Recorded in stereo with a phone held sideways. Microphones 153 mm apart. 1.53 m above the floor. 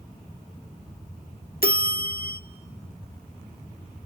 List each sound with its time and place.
1.6 s a bell: 75° left (ahead or behind), 1.1 m